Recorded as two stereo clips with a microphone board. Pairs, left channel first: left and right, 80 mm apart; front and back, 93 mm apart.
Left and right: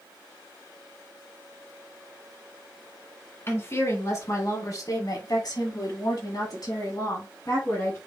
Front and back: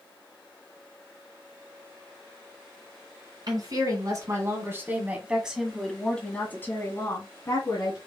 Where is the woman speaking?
145° left, 2.5 m; by 8.0 s 40° left, 2.5 m.